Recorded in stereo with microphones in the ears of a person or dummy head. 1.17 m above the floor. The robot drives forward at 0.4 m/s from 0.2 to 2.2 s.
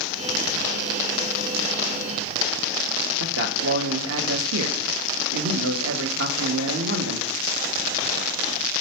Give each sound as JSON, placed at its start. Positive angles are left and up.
{"t": 3.2, "sound": "a man speaking", "side_deg": -75, "distance_m": 0.8}